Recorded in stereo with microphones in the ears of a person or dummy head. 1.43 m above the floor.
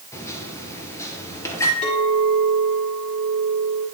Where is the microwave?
15° left (ahead or behind), 0.9 m.